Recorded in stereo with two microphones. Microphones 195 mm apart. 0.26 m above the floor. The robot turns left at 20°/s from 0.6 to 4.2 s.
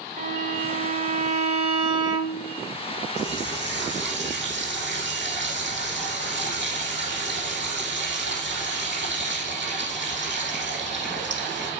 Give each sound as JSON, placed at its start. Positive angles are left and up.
{"t": 0.2, "sound": "a violin", "azimuth_deg": -125, "distance_m": 1.0}
{"t": 3.2, "sound": "a running tap", "side_deg": -70, "distance_m": 7.0}